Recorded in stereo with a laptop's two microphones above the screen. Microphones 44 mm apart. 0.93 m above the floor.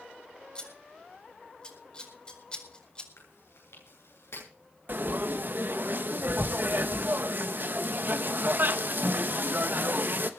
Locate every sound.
0.6 s scissors: 20° left (ahead or behind), 4.5 m
3.2 s chewing: 80° left, 9.5 m
4.9 s frying: 50° right (ahead or behind), 1.1 m